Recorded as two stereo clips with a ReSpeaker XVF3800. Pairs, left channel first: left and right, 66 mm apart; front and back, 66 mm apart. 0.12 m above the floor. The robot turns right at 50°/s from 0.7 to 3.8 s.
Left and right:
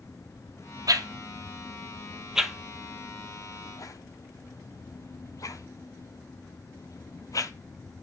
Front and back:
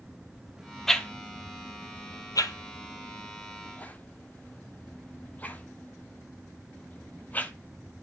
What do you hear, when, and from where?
0.9 s a whoosh: 85° right, 0.6 m; by 7.5 s 60° left, 0.6 m